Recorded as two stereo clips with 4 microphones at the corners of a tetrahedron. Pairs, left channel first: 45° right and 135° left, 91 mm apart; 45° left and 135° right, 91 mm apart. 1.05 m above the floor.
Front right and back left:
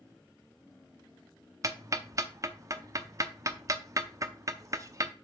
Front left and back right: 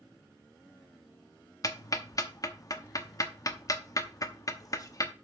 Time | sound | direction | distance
1.6 | ticking | 85° left | 0.8 m